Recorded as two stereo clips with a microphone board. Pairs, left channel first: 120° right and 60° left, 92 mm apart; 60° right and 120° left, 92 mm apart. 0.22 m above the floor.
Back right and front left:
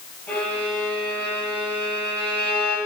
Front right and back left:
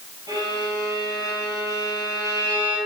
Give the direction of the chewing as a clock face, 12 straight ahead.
No chewing in this recording.